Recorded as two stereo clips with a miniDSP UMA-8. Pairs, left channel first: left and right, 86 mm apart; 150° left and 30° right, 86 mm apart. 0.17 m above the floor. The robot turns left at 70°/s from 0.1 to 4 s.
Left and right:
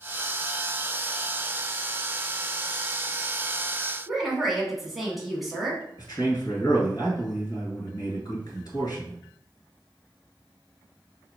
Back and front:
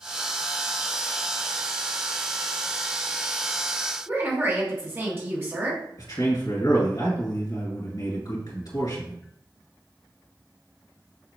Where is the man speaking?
120° left, 2.5 m.